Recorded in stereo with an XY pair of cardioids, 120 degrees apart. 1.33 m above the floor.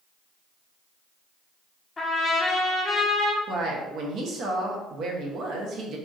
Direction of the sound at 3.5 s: 60° right.